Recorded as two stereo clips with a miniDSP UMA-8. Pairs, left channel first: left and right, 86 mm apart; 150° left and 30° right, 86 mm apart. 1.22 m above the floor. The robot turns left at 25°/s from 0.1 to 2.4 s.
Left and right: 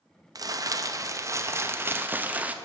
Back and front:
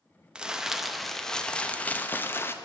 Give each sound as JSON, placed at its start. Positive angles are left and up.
{"t": 0.3, "sound": "crumpling", "azimuth_deg": -105, "distance_m": 0.6}